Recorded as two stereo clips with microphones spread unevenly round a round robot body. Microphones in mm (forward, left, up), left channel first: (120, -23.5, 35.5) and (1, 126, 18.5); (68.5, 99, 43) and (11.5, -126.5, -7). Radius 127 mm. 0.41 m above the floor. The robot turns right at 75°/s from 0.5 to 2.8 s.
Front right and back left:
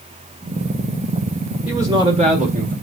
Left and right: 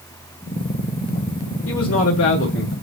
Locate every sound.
1.7 s a man speaking: 55° left, 1.9 m; by 2.7 s 135° left, 1.9 m